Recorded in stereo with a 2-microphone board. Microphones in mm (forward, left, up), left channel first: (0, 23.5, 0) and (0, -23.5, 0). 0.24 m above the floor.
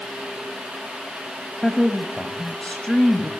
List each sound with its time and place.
1.6 s a woman speaking: 20° left (ahead or behind), 1.1 m